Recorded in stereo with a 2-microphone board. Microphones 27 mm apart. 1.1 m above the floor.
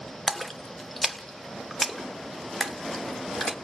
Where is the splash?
5° left (ahead or behind), 1.3 m.